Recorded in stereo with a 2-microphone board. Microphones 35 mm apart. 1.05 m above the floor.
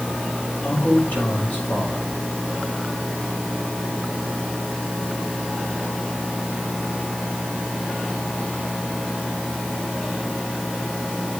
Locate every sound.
0.6 s a man speaking: 60° left (ahead or behind), 6 m